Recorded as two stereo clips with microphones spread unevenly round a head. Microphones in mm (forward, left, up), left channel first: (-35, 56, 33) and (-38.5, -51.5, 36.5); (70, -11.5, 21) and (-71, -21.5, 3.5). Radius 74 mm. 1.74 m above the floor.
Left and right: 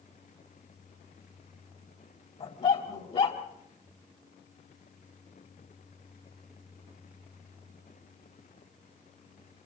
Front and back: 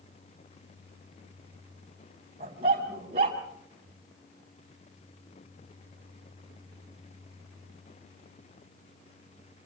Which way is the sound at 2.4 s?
125° left.